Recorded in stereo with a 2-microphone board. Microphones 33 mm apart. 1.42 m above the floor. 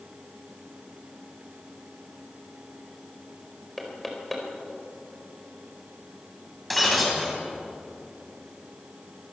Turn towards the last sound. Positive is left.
turn(degrees=0)  # may be behind; listen again after turning